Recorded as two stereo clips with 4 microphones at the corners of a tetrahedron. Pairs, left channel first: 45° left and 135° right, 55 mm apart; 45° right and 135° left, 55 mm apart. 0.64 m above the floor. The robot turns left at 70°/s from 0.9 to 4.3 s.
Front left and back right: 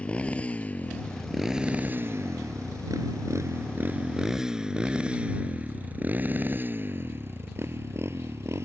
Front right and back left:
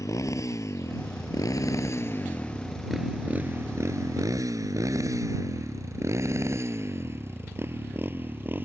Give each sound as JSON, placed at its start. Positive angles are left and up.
{"t": 0.0, "sound": "a motorcycle", "azimuth_deg": -25}